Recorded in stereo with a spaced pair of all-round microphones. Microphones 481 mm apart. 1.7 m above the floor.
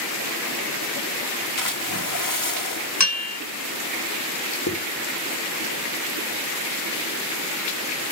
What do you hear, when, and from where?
1.6 s a splash: 45° left (ahead or behind), 2.5 m
3.0 s a bell: 35° left (ahead or behind), 1.3 m
4.7 s a zipper: 35° left (ahead or behind), 4 m